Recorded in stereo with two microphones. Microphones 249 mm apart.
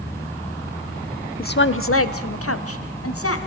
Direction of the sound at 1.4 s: 35° left (ahead or behind).